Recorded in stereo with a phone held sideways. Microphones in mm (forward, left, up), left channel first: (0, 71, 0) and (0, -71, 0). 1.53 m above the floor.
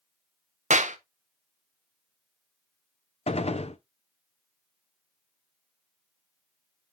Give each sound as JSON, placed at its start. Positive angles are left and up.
{"t": 0.7, "sound": "a clap", "side_deg": -60, "distance_m": 0.8}
{"t": 3.3, "sound": "a gunshot", "side_deg": 50, "distance_m": 0.6}